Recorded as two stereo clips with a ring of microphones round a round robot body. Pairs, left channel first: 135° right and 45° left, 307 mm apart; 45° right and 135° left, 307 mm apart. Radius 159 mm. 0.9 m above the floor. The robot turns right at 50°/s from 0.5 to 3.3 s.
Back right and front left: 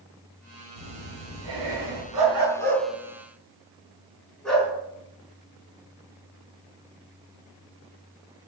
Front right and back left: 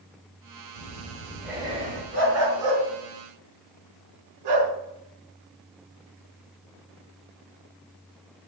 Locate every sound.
0.8 s breathing: 15° left, 3 m; by 2.0 s 75° left, 3 m
2.1 s a dog barking: 80° left, 4.5 m; by 4.7 s 135° left, 4.5 m